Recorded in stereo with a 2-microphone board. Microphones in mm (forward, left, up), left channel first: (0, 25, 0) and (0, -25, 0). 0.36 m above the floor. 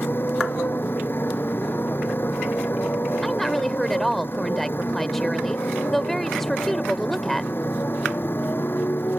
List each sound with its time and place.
0.0 s a motorcycle: 45° left (ahead or behind)
3.2 s a woman speaking: 5° left (ahead or behind)